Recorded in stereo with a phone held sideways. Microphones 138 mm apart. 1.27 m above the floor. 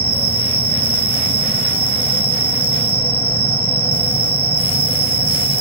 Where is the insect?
45° right (ahead or behind).